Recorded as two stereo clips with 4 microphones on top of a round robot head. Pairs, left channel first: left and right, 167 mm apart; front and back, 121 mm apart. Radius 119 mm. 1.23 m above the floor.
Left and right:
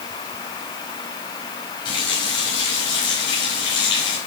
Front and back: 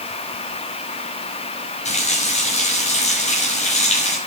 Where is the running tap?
20° left, 6 m.